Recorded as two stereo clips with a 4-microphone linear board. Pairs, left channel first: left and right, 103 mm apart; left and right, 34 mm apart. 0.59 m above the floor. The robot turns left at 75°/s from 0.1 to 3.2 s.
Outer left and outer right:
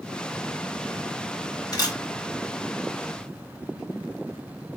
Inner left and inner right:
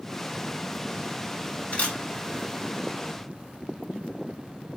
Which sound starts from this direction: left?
A camera shutter, at 1.7 s.